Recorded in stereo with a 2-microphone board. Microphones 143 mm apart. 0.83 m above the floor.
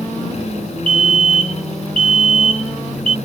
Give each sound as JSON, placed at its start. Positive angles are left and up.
{"t": 0.9, "sound": "a fire alarm", "side_deg": -40}